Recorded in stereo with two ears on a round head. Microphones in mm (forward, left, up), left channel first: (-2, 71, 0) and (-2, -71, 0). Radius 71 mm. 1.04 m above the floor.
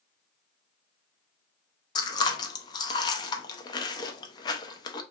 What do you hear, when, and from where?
1.9 s chewing: 25° left (ahead or behind), 0.5 m